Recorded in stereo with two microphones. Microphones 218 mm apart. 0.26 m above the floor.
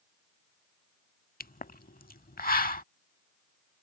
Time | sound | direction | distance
1.4 | a pop | 40° left (ahead or behind) | ?